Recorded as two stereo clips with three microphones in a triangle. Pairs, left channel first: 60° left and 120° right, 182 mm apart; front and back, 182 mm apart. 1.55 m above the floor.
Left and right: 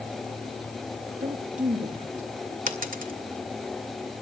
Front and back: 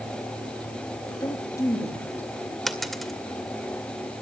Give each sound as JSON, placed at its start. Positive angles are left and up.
{"t": 1.2, "sound": "a woman speaking", "azimuth_deg": -65, "distance_m": 2.0}
{"t": 2.7, "sound": "a dropped coin", "azimuth_deg": -90, "distance_m": 2.0}